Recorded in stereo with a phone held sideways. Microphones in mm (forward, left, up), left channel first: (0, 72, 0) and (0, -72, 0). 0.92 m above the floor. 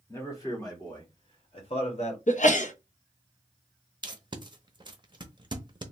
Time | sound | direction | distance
0.1 | a man speaking | 20° left (ahead or behind) | 1.8 m
2.3 | a sneeze | 60° left (ahead or behind) | 0.7 m
4.0 | tape being pulled | 35° right (ahead or behind) | 0.6 m